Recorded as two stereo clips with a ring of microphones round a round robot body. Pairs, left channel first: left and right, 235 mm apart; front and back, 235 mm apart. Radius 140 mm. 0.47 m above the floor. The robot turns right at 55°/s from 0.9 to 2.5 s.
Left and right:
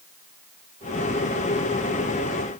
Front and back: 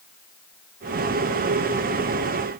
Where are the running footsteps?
No running footsteps in this recording.